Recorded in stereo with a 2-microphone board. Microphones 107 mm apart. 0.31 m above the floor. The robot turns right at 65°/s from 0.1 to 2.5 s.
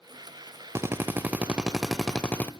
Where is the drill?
25° right (ahead or behind), 0.7 m; by 2.5 s 15° left (ahead or behind), 0.7 m.